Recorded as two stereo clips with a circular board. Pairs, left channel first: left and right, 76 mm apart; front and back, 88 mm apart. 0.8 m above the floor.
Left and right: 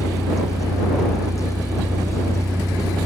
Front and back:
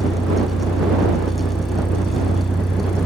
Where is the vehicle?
5° right; by 3.1 s 10° right.